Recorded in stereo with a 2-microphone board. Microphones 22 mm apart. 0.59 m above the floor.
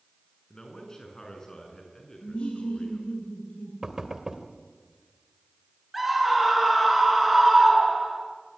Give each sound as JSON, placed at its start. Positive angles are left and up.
{"t": 0.5, "sound": "a man speaking", "side_deg": 25, "distance_m": 7.0}
{"t": 2.2, "sound": "laughter", "side_deg": 75, "distance_m": 9.0}
{"t": 3.8, "sound": "knocking", "side_deg": -25, "distance_m": 2.0}
{"t": 5.9, "sound": "a scream", "side_deg": -5, "distance_m": 6.5}